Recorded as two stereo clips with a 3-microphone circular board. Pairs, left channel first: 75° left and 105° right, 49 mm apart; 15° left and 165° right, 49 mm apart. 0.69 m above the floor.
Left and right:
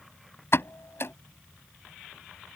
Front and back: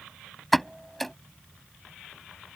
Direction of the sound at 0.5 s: 105° left.